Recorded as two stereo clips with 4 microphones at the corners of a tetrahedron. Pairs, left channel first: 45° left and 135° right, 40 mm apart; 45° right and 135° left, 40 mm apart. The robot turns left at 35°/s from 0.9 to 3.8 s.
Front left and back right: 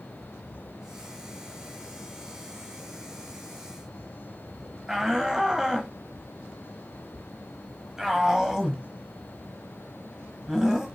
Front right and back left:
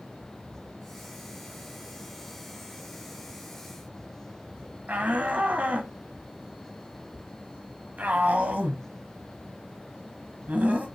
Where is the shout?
150° left, 1.3 m.